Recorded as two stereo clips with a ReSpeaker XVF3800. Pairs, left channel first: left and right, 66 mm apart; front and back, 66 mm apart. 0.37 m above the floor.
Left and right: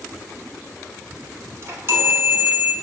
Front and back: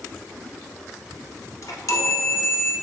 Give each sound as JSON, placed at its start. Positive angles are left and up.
{"t": 1.6, "sound": "a chime", "azimuth_deg": -40, "distance_m": 1.0}